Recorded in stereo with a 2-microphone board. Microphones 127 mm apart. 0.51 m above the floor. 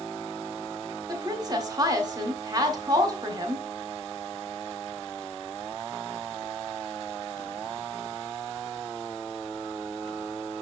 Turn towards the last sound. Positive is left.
turn(degrees=-30)  # may be behind; listen again after turning